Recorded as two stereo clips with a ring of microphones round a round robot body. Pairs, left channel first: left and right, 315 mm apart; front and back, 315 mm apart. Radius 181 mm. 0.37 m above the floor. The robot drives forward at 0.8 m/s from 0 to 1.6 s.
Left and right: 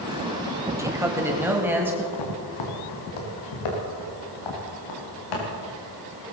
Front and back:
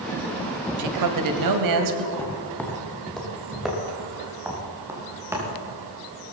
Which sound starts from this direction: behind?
A man speaking, at 0.8 s.